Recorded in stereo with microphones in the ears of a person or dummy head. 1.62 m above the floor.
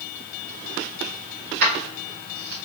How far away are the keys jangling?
About 2 m.